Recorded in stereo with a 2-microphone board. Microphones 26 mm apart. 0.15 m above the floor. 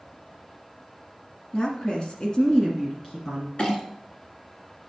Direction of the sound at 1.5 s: 35° left (ahead or behind).